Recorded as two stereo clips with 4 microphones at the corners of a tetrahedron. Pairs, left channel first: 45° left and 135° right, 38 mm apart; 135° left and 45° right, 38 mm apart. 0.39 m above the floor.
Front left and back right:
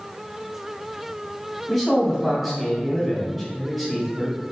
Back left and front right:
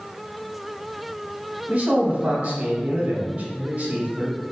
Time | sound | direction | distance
1.7 | a man speaking | 60° right | 0.9 m